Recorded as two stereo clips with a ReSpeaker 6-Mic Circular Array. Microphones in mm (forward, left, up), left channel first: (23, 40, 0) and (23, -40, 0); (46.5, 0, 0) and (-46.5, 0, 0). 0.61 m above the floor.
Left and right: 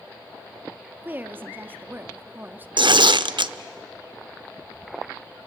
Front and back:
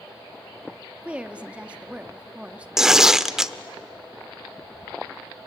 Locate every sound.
1.0 s a woman speaking: 115° right, 1.2 m
2.8 s tearing paper: 95° right, 0.7 m